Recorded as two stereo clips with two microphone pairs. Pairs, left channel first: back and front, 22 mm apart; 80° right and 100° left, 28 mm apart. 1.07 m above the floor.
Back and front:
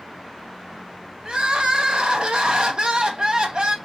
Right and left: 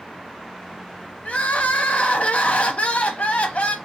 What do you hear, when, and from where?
1.2 s crying: 45° right, 0.8 m